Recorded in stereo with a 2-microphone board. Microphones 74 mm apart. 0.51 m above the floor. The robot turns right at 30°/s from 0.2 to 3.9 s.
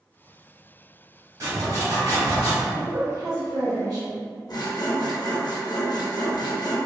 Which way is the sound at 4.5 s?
60° left (ahead or behind).